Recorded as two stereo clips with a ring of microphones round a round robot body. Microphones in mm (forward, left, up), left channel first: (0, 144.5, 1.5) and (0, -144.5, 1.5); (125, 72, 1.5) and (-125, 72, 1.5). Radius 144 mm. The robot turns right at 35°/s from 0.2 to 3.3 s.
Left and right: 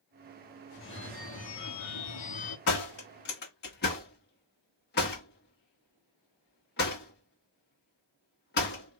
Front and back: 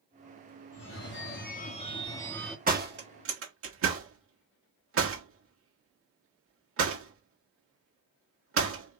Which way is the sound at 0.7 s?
30° left.